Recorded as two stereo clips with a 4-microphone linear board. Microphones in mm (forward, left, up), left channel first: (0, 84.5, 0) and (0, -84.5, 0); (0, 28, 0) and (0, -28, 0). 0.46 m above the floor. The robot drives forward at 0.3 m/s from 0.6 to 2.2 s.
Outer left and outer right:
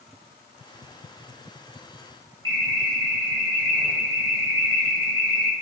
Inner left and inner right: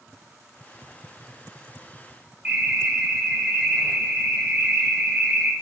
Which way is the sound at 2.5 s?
25° right (ahead or behind).